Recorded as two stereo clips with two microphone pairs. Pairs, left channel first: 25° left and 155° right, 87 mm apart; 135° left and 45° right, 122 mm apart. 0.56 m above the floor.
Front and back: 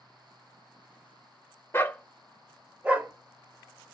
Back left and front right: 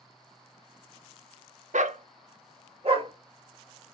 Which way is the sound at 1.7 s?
40° right.